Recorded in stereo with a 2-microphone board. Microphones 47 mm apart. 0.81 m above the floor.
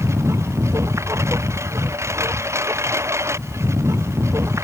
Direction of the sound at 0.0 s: 85° right.